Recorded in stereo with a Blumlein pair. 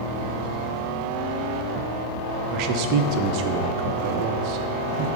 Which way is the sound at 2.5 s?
40° right.